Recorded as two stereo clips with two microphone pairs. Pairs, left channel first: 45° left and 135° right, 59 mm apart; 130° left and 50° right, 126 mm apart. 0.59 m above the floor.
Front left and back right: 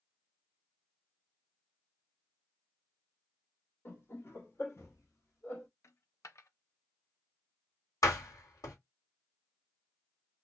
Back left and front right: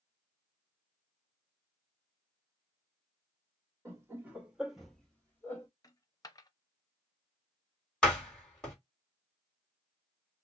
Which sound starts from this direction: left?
A dropped coin, at 5.8 s.